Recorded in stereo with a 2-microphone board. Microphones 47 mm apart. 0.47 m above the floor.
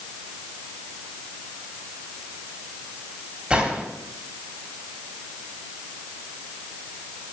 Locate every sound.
3.5 s a gunshot: 20° right (ahead or behind), 2 m